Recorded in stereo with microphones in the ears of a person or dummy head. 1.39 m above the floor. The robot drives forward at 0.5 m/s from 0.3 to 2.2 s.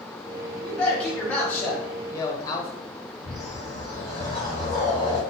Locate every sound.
0.6 s a man speaking: 5° left (ahead or behind), 1.2 m; by 2.7 s 15° left (ahead or behind), 0.5 m
3.2 s a whoosh: 30° left (ahead or behind), 1.4 m